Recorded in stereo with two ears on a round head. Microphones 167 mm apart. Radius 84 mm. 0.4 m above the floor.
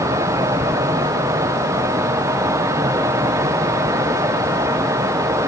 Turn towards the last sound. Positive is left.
No sound to turn to.